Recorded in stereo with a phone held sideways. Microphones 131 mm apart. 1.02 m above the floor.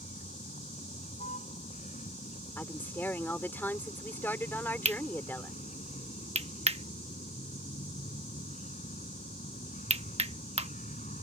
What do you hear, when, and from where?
0.0 s a vehicle: 75° left (ahead or behind)
2.6 s a woman speaking: 15° left (ahead or behind)
4.8 s cutlery clinking: 55° right (ahead or behind)